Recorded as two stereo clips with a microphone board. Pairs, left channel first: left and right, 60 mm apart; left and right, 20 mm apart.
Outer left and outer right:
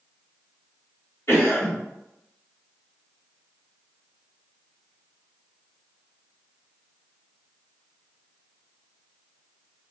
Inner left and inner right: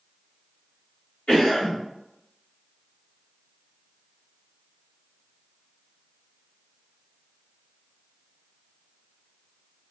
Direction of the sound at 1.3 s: 50° left (ahead or behind).